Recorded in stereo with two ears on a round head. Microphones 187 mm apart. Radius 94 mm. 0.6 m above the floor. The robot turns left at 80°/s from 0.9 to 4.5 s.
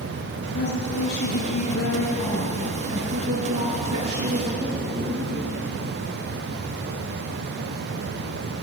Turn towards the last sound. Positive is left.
turn(degrees=-160)